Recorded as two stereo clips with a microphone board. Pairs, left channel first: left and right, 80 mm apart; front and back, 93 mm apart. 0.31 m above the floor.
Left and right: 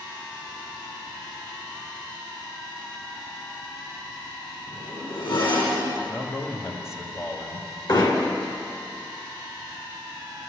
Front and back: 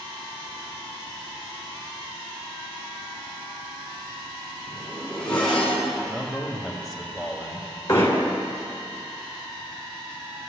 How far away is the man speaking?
About 1.8 m.